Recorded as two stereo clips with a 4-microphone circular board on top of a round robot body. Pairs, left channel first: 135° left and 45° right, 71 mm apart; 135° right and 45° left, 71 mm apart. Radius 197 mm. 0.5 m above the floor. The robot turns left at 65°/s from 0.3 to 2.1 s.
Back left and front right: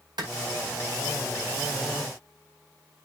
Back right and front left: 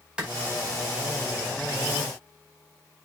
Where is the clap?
30° right, 4.5 m.